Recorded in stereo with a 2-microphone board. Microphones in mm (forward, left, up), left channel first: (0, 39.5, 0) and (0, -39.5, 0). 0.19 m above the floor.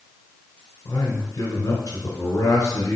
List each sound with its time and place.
0.8 s a man speaking: 45° left (ahead or behind), 2.5 m